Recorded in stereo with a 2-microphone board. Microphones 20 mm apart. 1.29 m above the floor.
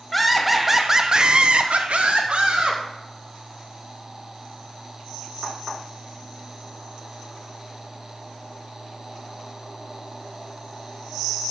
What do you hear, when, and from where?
0.1 s laughter: 10° left (ahead or behind), 1.0 m; by 2.8 s 70° right (ahead or behind), 1.3 m